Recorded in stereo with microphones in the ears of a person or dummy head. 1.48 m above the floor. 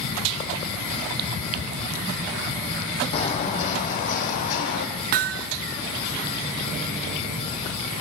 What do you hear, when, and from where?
3.1 s footsteps: 30° left (ahead or behind), 3 m; by 4.9 s 45° left (ahead or behind), 4.5 m
5.1 s hammering: 50° right (ahead or behind), 0.6 m